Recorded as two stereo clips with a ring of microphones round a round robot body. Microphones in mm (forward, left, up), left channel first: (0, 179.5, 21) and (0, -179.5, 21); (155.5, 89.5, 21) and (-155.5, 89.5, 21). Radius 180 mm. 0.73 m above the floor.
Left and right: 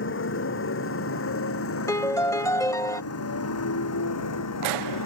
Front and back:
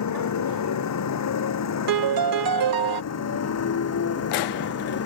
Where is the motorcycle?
30° left; by 5.1 s 40° left.